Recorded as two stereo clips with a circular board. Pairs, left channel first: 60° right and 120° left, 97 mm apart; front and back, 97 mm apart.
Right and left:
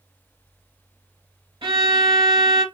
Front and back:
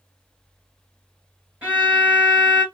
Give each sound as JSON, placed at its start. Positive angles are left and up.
{"t": 1.6, "sound": "a violin", "azimuth_deg": 105, "distance_m": 2.5}